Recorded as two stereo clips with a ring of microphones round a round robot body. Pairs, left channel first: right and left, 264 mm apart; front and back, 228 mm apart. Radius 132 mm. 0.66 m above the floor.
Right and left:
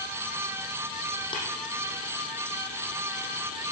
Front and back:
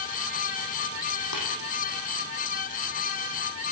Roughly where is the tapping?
Ahead.